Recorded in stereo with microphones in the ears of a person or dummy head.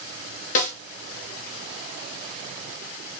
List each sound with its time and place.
0.6 s a snare drum: 40° left (ahead or behind), 0.8 m